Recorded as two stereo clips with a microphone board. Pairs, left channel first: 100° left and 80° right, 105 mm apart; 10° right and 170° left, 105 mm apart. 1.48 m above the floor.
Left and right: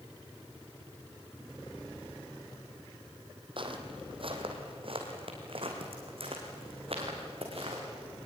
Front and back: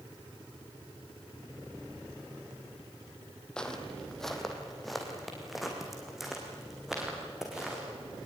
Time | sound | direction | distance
3.6 | footsteps | 90° right | 2.5 m